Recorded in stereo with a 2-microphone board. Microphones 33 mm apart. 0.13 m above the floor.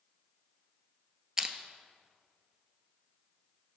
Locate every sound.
1.4 s crushing: 15° right (ahead or behind), 0.8 m